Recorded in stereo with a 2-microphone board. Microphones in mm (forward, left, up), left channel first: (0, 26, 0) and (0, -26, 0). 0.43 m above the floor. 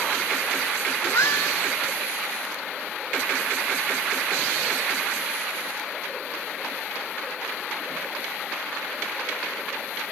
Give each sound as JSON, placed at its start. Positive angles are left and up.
{"t": 1.0, "sound": "a cat meowing", "side_deg": 65, "distance_m": 2.5}